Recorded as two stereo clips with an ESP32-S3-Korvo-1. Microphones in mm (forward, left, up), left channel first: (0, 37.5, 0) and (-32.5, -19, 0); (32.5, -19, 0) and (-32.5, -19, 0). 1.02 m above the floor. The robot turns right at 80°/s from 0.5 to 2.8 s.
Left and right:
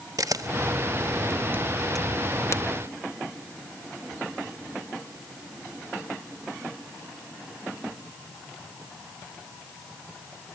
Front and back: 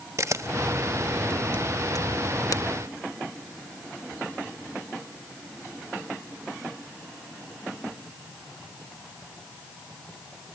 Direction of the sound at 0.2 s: 140° right.